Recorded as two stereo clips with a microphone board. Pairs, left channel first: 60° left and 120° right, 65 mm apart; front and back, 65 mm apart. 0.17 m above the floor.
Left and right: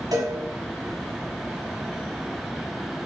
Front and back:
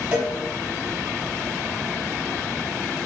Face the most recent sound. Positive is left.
turn(degrees=-100)